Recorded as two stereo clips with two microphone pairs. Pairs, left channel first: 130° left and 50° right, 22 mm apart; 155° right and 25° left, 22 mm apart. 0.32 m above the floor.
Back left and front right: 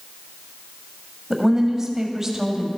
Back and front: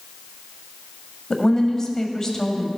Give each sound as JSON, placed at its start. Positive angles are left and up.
{"t": 1.3, "sound": "a woman speaking", "azimuth_deg": -110, "distance_m": 1.6}